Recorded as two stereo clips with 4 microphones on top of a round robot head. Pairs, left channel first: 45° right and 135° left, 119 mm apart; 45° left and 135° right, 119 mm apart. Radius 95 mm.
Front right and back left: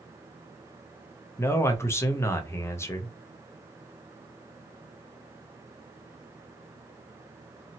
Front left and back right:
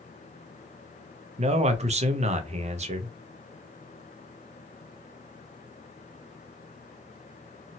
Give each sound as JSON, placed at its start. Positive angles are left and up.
{"t": 1.4, "sound": "a man speaking", "azimuth_deg": -115, "distance_m": 0.6}